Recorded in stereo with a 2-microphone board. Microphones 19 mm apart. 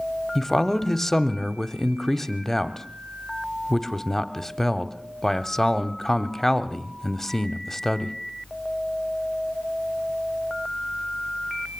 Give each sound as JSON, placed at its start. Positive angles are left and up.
{"t": 0.3, "sound": "a man speaking", "side_deg": 15, "distance_m": 0.9}